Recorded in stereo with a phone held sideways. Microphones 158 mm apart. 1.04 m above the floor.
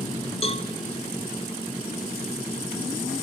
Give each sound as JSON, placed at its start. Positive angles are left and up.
{"t": 0.4, "sound": "a cowbell", "side_deg": 40, "distance_m": 1.8}